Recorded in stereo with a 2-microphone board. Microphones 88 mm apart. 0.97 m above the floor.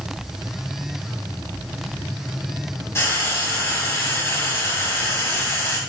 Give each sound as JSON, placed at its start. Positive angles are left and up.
{"t": 3.0, "sound": "frying", "side_deg": 30, "distance_m": 1.3}